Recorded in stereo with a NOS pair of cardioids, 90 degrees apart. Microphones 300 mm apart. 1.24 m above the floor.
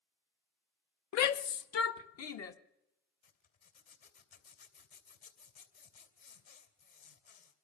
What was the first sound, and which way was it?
A shout, 65° left.